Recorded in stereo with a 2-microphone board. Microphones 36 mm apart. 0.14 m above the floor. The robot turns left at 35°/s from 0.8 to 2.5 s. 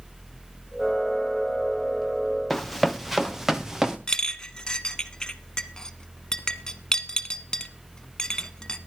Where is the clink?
20° left (ahead or behind), 1.0 m.